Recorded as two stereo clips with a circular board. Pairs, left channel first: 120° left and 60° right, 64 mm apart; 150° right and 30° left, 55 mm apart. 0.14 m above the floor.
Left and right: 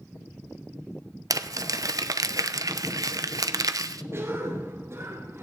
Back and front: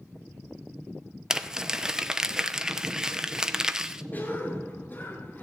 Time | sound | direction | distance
1.3 | crumpling | 45° right | 0.6 m
4.1 | a cough | 100° right | 2 m